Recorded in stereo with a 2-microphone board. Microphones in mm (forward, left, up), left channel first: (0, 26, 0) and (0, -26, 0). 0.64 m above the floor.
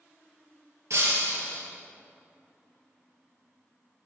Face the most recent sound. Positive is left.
turn(degrees=-70)  # may be behind; listen again after turning